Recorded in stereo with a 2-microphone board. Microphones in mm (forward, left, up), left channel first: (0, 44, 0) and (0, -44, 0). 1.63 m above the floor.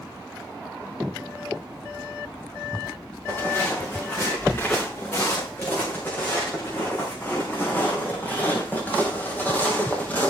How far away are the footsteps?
About 10 m.